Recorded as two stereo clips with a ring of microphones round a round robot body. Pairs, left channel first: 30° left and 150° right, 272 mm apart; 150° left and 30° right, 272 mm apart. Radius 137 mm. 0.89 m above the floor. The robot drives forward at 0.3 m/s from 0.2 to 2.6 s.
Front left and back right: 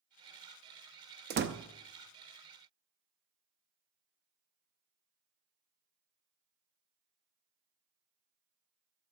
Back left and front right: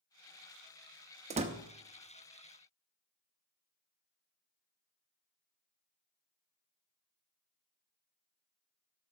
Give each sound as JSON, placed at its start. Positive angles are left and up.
{"t": 1.3, "sound": "a door slam", "azimuth_deg": -95, "distance_m": 0.7}